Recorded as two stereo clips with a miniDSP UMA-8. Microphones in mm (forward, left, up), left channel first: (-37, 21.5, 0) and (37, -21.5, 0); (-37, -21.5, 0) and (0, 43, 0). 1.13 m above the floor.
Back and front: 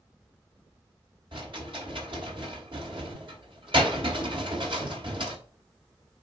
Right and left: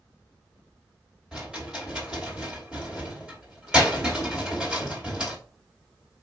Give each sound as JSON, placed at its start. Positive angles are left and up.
{"t": 1.3, "sound": "a rattle", "azimuth_deg": -20, "distance_m": 3.0}